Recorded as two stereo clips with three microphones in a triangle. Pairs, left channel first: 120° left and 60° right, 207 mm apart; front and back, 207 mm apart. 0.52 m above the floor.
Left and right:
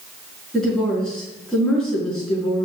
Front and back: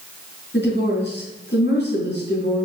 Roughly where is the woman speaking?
Ahead left.